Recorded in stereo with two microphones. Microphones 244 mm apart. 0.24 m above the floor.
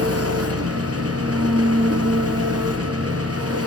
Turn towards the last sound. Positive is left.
turn(degrees=-75)  # may be behind; listen again after turning